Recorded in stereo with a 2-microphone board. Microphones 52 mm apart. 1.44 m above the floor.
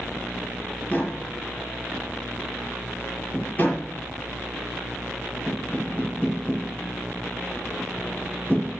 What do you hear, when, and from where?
0.9 s tapping: 30° left (ahead or behind), 6 m